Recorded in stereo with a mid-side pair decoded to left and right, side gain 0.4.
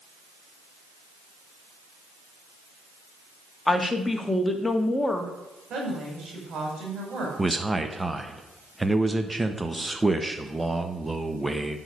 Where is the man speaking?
15° right, 1.2 m.